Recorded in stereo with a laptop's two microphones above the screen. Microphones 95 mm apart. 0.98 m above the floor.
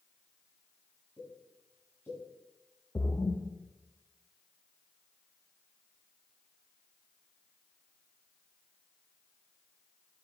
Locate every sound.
1.2 s a pop: 25° left (ahead or behind), 6.5 m
3.0 s a splash: 35° left (ahead or behind), 1.2 m